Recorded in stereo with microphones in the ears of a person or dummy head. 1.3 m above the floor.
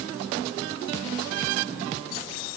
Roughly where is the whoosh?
No whoosh in this recording.